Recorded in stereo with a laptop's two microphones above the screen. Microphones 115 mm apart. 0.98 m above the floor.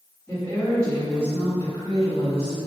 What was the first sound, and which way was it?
A woman speaking, 15° left (ahead or behind).